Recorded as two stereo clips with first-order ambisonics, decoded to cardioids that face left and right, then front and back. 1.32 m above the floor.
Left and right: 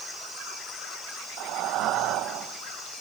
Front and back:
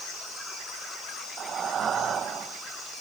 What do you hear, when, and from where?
1.4 s breathing: 120° right, 0.6 m